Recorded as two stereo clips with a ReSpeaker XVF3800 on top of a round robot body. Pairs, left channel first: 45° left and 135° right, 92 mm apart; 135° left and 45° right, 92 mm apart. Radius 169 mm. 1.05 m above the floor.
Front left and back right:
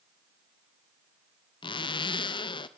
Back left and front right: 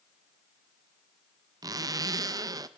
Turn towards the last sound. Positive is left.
turn(degrees=10)